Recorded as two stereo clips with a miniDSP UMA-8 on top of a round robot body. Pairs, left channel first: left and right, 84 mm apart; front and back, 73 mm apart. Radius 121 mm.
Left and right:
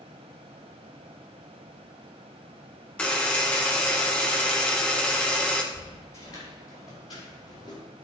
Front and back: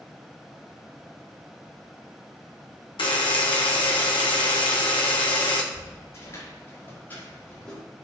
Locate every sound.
3.0 s a buzzer: 15° left, 1.2 m
5.7 s footsteps: 40° left, 5 m; by 7.8 s 75° left, 5 m